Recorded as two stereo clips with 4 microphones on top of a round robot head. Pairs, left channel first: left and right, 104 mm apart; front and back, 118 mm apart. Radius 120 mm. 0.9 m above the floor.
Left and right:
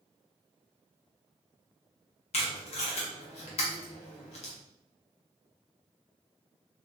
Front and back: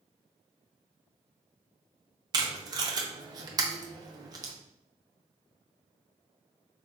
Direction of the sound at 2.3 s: 125° left.